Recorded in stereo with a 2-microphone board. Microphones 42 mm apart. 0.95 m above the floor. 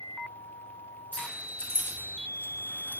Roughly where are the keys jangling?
Left.